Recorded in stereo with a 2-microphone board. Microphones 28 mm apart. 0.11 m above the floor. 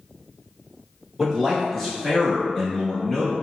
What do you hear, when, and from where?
1.2 s a man speaking: centre (ahead or behind), 1.2 m; by 3.3 s 30° left (ahead or behind), 1.5 m